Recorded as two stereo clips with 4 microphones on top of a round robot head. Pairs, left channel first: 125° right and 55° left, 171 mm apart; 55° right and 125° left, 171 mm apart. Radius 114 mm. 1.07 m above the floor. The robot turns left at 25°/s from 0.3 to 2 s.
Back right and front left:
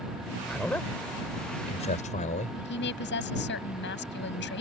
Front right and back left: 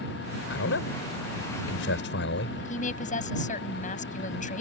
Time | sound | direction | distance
0.5 | a man speaking | 35° right | ?
2.6 | a woman speaking | 105° right | ?